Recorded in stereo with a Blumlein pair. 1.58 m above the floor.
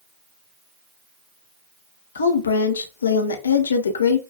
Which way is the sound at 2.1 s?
70° left.